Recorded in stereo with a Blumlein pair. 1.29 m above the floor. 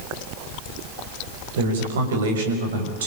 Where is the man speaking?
60° right, 6 m.